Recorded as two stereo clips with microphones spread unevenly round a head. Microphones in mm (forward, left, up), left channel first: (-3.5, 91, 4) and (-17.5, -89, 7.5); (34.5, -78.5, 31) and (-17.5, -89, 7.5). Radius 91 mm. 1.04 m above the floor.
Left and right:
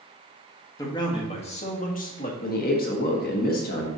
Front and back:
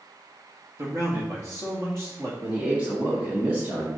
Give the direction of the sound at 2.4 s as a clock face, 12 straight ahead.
8 o'clock.